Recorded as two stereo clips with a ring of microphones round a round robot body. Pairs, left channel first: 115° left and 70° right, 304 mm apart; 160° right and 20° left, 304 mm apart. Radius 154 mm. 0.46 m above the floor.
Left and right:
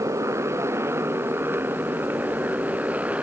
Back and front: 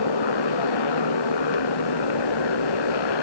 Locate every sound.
0.0 s a motorcycle: 150° right; by 3.2 s 155° right